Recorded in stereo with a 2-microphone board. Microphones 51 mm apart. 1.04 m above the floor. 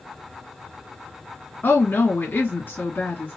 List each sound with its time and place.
1.6 s a woman speaking: 40° left (ahead or behind), 1.8 m